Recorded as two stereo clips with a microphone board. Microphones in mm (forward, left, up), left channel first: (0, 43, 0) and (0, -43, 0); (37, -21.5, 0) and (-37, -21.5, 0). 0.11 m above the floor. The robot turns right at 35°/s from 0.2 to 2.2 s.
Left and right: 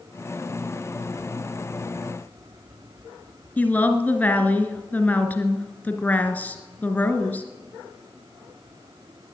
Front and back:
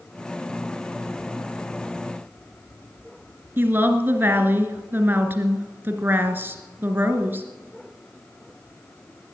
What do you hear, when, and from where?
3.6 s a woman speaking: 145° left, 1.3 m